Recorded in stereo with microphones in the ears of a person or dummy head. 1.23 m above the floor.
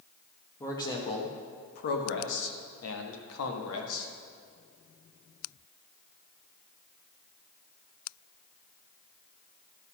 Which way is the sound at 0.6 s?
15° left (ahead or behind).